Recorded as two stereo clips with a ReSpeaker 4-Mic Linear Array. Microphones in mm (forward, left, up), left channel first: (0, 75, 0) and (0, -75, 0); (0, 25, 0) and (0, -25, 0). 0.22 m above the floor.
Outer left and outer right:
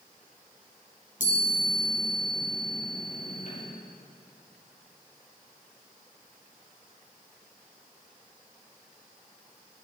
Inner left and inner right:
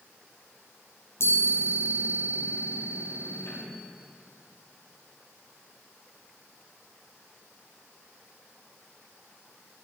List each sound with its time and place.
1.2 s a chime: 55° left (ahead or behind), 4 m